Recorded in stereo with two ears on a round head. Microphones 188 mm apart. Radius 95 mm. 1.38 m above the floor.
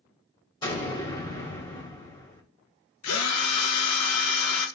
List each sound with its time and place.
0.6 s an explosion: 20° left (ahead or behind), 2 m
3.0 s a drill: 80° left, 1.0 m